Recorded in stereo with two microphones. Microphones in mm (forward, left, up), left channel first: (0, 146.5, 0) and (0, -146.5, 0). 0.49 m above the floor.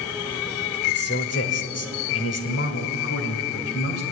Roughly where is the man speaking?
Left.